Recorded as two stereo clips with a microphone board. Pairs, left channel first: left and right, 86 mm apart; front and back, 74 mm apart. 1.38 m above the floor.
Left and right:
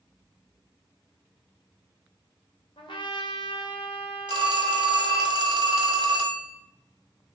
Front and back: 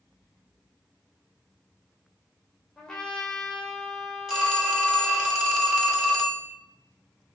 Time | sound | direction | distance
2.8 | a trumpet | 80° left | 0.9 m
4.3 | a phone ringing | 100° right | 1.4 m